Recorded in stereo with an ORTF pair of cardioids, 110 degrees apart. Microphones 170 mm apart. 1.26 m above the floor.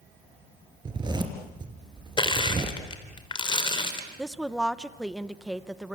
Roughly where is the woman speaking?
Ahead.